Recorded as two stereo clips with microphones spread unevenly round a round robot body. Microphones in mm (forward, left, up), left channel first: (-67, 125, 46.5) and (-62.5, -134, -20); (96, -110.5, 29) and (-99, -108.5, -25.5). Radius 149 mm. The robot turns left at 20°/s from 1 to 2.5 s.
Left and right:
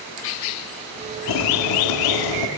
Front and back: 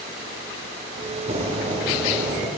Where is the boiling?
120° left, 0.8 m; by 2.5 s 95° left, 0.8 m.